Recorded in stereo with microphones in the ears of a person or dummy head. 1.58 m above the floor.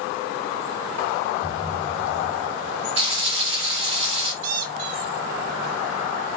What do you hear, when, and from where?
1.4 s a thud: 45° right (ahead or behind), 4 m
3.0 s frying: 35° right (ahead or behind), 2.5 m
4.4 s a squeak: 60° right (ahead or behind), 1.5 m